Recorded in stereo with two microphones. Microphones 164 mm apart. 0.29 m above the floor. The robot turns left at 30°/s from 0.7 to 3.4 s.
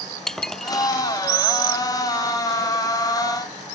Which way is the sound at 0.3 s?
5° left (ahead or behind).